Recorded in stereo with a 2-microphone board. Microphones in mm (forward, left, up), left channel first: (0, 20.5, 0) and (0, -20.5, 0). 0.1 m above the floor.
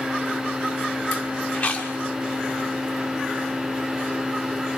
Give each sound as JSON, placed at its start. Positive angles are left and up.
{"t": 1.5, "sound": "chewing", "side_deg": 25, "distance_m": 7.0}